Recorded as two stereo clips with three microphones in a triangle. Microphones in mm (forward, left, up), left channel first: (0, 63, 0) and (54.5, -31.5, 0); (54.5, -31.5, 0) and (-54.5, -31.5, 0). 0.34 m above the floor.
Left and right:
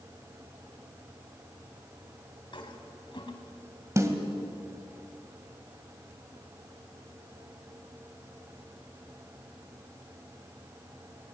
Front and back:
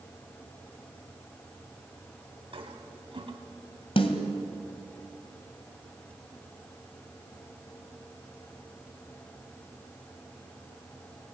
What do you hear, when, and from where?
2.5 s a toilet flushing: 155° left, 2 m
4.0 s a snare drum: straight ahead, 2 m